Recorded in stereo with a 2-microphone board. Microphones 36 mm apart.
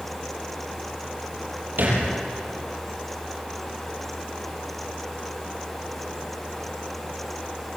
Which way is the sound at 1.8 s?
55° right (ahead or behind).